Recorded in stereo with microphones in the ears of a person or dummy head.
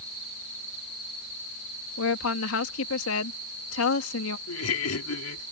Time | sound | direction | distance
2.0 | a woman speaking | 80° left | ?
4.5 | laughter | 85° left | ?